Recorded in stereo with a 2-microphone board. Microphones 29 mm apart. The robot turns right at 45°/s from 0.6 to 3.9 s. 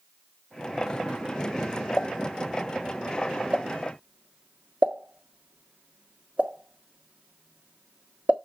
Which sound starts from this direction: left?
A pop, at 2.0 s.